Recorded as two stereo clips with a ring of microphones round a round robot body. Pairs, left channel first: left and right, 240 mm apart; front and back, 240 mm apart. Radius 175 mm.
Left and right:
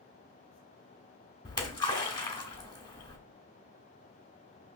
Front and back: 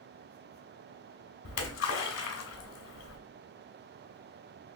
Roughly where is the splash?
Ahead.